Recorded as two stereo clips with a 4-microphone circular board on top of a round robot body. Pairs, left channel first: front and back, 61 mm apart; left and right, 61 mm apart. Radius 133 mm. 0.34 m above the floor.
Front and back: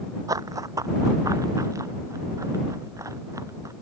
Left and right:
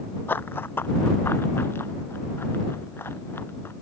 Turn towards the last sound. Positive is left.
turn(degrees=145)